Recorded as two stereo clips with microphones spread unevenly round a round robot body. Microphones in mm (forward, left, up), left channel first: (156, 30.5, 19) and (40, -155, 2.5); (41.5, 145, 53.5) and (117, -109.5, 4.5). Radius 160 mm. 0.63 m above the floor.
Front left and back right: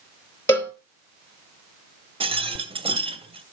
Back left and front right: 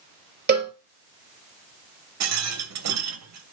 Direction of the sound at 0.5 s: 20° right.